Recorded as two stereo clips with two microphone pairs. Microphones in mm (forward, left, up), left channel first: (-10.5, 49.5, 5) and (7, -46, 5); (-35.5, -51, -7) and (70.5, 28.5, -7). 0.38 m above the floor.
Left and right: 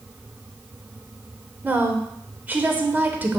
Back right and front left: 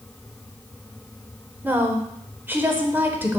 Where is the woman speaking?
25° right, 0.9 m.